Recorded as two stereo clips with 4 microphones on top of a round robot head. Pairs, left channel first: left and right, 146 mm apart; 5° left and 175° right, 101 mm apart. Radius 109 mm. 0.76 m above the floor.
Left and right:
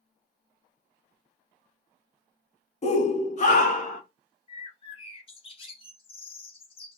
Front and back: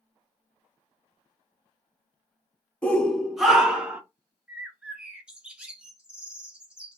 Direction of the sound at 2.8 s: 80° left.